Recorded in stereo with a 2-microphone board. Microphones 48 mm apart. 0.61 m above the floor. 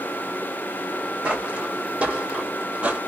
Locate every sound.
1.2 s footsteps: 25° right (ahead or behind), 2 m; by 3.0 s 30° right (ahead or behind), 1.0 m